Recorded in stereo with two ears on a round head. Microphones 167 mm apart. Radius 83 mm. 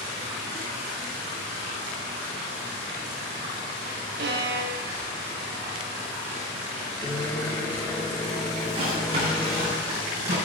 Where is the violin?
60° right (ahead or behind), 0.8 m.